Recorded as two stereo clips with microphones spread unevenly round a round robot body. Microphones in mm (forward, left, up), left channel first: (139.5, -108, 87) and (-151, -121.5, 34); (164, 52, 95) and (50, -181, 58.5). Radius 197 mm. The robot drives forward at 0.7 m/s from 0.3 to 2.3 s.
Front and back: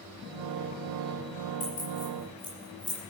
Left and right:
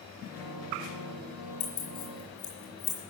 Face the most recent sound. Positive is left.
turn(degrees=100)